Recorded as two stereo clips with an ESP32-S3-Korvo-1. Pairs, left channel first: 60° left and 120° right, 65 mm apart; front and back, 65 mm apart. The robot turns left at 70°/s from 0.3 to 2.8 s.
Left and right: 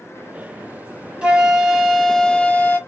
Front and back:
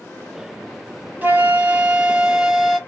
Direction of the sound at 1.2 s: 175° right.